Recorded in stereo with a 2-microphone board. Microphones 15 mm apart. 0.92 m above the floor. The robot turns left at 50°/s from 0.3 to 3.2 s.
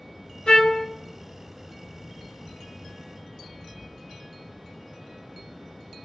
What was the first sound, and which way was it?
A trumpet, 65° left (ahead or behind).